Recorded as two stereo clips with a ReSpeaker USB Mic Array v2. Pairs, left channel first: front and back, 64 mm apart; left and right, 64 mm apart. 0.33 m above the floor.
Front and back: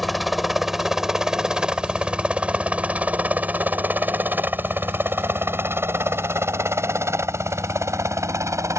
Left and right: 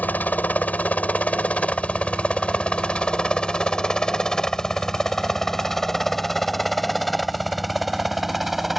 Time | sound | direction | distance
0.0 | a helicopter | 90° left | ?